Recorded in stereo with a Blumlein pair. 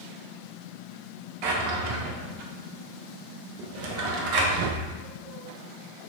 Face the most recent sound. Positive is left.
turn(degrees=-45)